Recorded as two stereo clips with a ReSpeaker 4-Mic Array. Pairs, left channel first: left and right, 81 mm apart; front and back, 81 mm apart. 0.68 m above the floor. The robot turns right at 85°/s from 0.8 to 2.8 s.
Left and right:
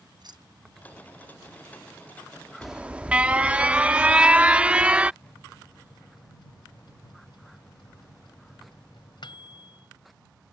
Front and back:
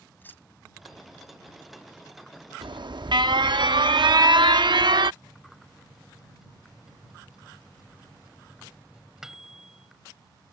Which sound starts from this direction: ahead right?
Keys jangling, at 0.2 s.